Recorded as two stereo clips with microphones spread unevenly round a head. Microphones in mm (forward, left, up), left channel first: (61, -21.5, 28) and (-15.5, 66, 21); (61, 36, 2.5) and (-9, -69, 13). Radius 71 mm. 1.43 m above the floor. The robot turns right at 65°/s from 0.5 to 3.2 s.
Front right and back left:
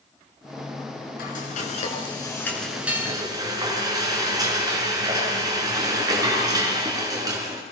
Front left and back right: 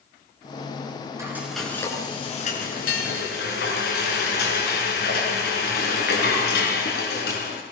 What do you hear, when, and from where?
1.2 s frying: 60° right, 6 m; by 7.6 s 75° left, 6 m